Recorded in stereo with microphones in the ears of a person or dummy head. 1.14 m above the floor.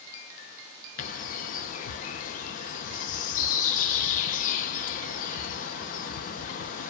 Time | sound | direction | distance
1.0 | a bird | 40° left (ahead or behind) | 0.5 m